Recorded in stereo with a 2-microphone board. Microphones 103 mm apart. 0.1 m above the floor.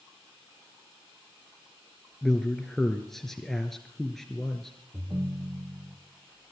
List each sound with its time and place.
2.2 s a man speaking: 5° left (ahead or behind), 1.5 m
4.9 s a ringtone: 35° right (ahead or behind), 2 m